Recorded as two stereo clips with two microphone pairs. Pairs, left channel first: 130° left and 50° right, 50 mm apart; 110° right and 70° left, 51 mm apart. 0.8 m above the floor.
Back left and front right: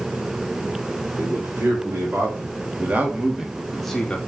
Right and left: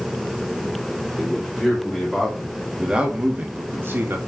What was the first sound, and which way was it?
A man speaking, 35° right.